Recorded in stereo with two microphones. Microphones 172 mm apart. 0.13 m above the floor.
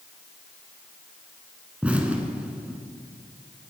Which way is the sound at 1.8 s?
5° right (ahead or behind).